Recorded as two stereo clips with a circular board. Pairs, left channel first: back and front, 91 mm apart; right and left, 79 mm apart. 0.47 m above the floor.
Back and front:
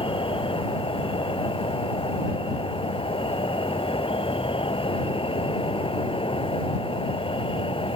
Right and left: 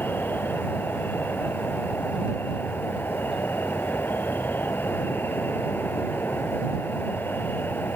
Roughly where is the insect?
Behind right.